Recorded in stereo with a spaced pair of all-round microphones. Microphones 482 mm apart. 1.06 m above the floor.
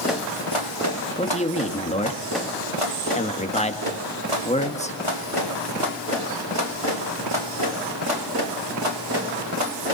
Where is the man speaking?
15° left (ahead or behind), 1.9 m.